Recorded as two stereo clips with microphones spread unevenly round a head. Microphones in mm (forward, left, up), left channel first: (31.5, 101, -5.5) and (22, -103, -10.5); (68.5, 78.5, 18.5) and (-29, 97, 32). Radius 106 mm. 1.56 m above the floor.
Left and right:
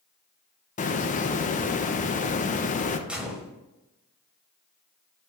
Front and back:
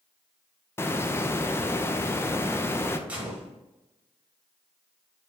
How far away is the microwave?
I don't hear a microwave.